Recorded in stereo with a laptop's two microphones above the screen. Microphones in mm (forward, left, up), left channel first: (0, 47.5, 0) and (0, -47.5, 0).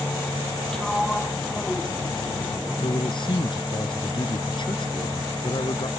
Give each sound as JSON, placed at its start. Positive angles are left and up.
{"t": 0.7, "sound": "a sliding door", "side_deg": 5}
{"t": 2.8, "sound": "a man speaking", "side_deg": 55}